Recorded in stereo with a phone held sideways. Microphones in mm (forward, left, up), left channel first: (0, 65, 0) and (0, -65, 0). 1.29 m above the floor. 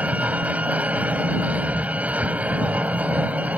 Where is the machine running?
10° right (ahead or behind).